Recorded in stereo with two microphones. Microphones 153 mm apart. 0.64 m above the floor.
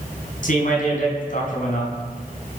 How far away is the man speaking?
About 4.5 m.